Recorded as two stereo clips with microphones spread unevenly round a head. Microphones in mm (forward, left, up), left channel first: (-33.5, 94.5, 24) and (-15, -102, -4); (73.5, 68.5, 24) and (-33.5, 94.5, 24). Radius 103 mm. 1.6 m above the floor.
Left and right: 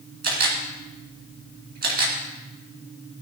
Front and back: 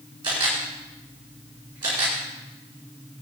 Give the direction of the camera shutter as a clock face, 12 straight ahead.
4 o'clock.